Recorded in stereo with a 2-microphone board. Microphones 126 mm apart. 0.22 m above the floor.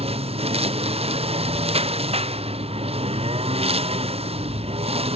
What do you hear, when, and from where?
0.0 s a lawn mower: 50° right (ahead or behind)